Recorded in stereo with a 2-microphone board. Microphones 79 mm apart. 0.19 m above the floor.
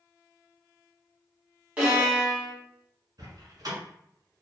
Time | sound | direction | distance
1.8 | a violin | 15° right (ahead or behind) | 1.5 m
3.2 | a door slam | 55° right (ahead or behind) | 1.4 m